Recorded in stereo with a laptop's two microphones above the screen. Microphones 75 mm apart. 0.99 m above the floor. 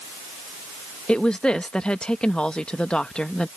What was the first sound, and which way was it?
A woman speaking, 10° left (ahead or behind).